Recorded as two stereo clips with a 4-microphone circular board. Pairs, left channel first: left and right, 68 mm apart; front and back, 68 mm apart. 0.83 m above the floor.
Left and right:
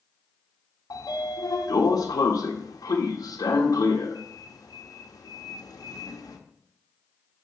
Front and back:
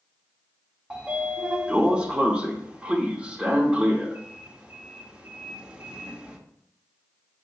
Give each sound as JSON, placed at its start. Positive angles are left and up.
{"t": 0.9, "sound": "a sliding door", "azimuth_deg": 105, "distance_m": 0.8}